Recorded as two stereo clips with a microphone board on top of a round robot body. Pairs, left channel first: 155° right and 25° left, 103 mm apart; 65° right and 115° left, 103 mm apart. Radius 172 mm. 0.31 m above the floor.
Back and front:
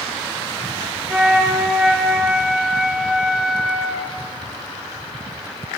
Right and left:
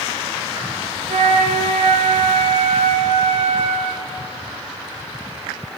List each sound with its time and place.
1.1 s a flute: 105° left, 1.2 m